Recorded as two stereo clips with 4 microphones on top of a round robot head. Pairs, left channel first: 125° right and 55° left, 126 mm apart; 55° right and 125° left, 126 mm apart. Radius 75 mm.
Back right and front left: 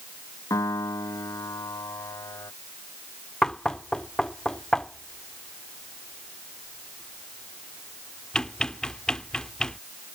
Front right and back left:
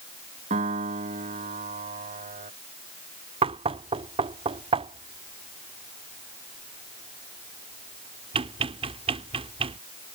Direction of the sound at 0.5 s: 165° left.